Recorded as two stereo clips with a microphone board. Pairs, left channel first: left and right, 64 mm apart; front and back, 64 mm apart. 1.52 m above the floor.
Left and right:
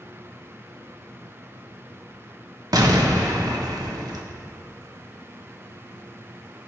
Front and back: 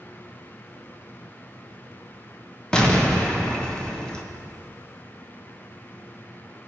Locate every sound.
2.7 s an explosion: 75° right, 1.2 m